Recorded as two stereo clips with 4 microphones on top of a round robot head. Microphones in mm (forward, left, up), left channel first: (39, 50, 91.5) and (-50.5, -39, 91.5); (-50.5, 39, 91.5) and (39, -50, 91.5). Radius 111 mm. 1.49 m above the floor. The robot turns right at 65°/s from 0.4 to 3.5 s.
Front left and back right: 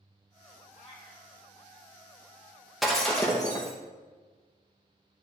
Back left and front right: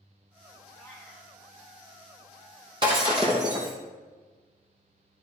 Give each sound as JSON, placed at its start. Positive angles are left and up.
{"t": 0.8, "sound": "a cat meowing", "azimuth_deg": 60, "distance_m": 0.7}
{"t": 2.8, "sound": "breaking glass", "azimuth_deg": -45, "distance_m": 0.7}